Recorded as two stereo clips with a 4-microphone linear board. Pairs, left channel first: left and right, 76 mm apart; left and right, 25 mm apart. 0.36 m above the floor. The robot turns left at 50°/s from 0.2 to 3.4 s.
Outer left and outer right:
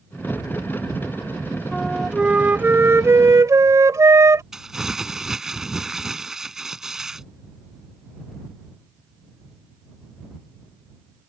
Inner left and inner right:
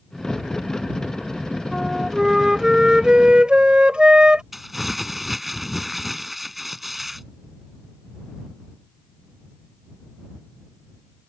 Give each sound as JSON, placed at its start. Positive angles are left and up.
{"t": 1.7, "sound": "a flute", "azimuth_deg": 10}
{"t": 4.5, "sound": "crumpling", "side_deg": -5}